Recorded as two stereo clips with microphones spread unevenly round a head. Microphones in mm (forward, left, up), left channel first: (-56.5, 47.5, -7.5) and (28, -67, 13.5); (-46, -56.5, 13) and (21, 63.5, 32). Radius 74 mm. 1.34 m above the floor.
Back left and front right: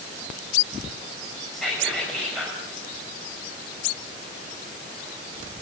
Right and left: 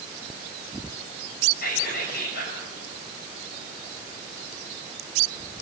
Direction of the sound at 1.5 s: 145° right.